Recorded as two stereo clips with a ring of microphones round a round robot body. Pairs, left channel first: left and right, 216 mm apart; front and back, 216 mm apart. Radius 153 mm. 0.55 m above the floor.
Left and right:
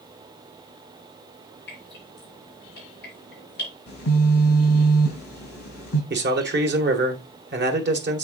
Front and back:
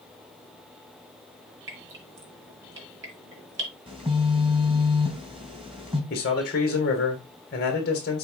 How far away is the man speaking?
About 1.9 m.